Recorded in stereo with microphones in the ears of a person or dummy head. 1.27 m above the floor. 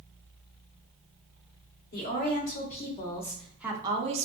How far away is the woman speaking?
About 1.0 m.